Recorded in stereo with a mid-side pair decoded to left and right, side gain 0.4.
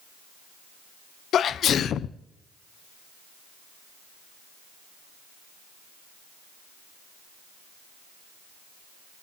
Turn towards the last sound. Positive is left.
turn(degrees=65)